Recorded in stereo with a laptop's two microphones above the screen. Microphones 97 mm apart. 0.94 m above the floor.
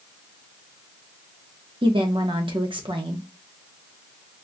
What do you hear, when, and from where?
1.8 s a woman speaking: 60° right (ahead or behind), 0.9 m